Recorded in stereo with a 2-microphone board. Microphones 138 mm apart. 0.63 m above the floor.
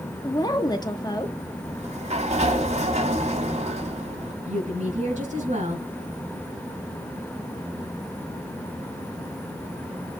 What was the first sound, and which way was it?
A woman speaking, 30° left (ahead or behind).